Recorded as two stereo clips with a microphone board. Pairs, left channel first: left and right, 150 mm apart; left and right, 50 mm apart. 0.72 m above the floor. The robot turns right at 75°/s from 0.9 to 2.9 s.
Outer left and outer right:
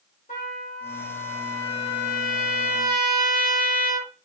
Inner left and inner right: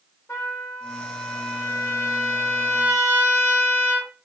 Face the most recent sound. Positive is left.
turn(degrees=-105)